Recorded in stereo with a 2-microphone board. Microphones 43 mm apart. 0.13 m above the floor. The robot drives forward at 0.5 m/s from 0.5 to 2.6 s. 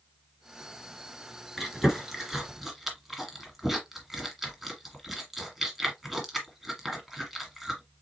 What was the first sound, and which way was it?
Chewing, 5° right (ahead or behind).